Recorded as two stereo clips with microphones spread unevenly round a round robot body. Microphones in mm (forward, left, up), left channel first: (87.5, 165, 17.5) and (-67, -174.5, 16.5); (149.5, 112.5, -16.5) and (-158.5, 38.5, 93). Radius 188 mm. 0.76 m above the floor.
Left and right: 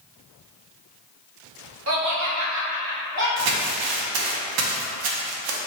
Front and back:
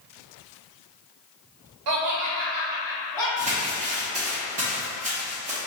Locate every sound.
1.9 s laughter: 160° right, 1.1 m; by 3.3 s 55° right, 1.8 m
3.4 s crumpling: 90° right, 0.7 m